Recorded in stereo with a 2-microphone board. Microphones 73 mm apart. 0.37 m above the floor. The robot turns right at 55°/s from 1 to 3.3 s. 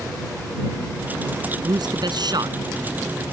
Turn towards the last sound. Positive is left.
turn(degrees=-20)